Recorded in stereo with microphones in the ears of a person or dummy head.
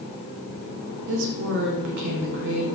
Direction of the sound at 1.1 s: 65° right (ahead or behind).